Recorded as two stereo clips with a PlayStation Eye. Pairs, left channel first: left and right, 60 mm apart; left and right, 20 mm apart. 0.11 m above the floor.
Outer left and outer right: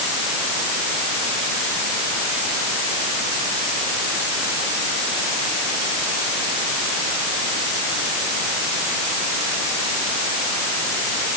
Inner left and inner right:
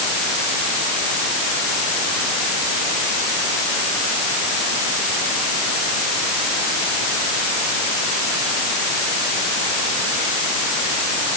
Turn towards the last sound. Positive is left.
No sound to turn to.